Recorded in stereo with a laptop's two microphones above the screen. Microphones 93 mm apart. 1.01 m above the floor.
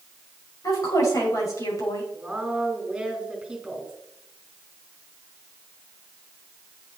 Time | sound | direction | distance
0.6 | a woman speaking | 40° left (ahead or behind) | 6 m
2.1 | a woman speaking | 5° right (ahead or behind) | 6 m